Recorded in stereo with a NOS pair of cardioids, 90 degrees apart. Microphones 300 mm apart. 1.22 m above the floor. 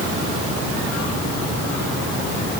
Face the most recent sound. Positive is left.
No sound to turn to.